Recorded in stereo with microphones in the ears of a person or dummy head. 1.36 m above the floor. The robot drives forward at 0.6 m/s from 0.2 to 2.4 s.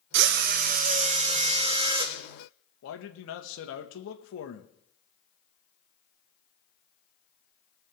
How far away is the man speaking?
About 1.4 m.